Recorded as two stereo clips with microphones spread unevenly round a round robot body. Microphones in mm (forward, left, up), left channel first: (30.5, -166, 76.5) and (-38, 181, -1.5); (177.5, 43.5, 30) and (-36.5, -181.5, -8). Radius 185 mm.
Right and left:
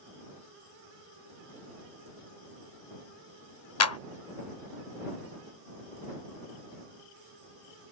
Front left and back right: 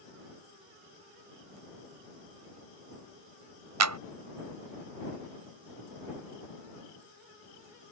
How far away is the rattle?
No rattle in this recording.